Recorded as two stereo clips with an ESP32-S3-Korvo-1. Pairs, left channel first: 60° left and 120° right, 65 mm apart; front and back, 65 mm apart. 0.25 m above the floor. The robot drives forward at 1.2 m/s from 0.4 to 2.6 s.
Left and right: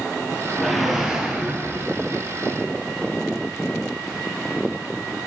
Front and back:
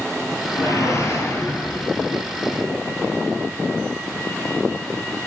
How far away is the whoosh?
About 2.5 m.